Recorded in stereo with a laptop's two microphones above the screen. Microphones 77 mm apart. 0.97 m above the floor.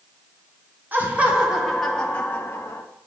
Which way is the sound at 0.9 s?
25° right (ahead or behind).